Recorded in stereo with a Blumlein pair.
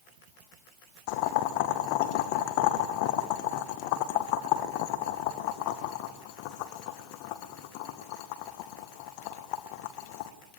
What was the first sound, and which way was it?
Boiling, 45° left.